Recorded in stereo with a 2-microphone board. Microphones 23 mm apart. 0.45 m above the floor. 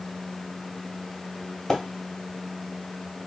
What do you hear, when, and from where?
1.7 s a splash: 25° left (ahead or behind), 1.9 m